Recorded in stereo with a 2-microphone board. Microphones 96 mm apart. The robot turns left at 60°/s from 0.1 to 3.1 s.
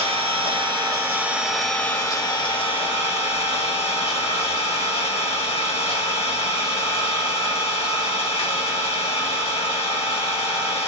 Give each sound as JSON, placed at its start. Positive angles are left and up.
{"t": 0.0, "sound": "an engine running", "azimuth_deg": -95, "distance_m": 0.9}